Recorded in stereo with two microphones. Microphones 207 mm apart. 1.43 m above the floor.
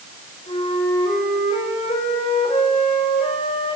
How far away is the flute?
About 5 m.